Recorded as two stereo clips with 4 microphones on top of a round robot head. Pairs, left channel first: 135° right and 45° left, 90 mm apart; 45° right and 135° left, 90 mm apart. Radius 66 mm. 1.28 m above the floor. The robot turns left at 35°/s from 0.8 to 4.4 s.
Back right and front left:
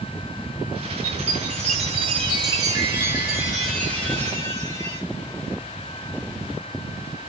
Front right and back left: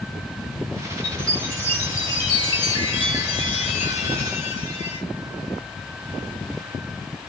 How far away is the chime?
About 1.3 m.